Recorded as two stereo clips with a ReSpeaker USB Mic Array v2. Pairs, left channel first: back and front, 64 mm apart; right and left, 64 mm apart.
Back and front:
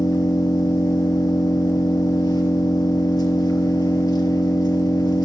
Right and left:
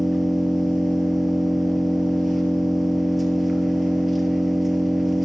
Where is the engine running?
175° left, 2 m.